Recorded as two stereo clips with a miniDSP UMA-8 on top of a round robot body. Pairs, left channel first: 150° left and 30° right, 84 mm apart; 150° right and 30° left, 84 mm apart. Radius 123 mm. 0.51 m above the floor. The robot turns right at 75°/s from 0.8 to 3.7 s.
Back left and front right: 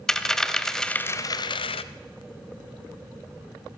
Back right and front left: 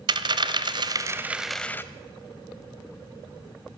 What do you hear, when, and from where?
0.1 s a dropped coin: 65° left, 0.6 m; by 1.8 s 145° left, 0.6 m